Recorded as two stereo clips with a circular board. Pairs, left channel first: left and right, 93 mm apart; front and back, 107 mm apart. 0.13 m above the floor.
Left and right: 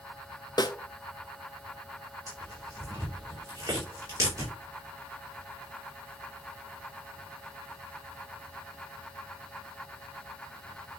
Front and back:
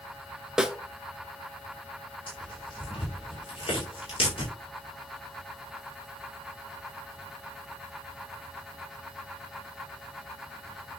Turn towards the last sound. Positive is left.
turn(degrees=-40)